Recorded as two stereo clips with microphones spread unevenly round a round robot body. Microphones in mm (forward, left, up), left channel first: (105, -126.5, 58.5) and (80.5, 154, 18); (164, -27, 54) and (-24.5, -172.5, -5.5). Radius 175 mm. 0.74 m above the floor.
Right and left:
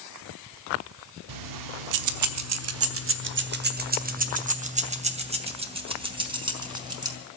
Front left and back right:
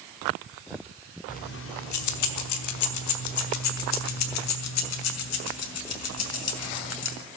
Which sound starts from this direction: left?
Keys jangling, at 1.3 s.